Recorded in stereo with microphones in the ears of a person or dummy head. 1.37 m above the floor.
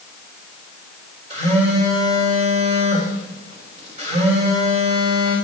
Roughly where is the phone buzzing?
Right.